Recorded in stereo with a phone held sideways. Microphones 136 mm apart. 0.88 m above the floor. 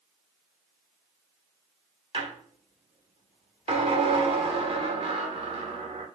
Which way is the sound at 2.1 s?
45° right (ahead or behind).